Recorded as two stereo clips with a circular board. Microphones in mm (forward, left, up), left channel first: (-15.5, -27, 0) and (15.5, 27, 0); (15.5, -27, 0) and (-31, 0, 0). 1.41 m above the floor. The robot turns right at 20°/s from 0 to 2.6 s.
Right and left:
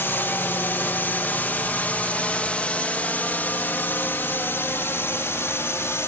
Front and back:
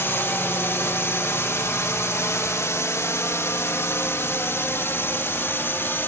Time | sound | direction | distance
0.0 | a drone | 70° right | ?